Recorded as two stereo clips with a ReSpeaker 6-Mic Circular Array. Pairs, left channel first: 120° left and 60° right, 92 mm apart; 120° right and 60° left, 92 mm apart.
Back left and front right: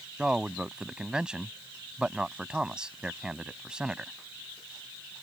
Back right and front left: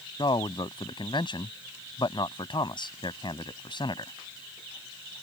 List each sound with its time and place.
0.2 s a man speaking: 140° right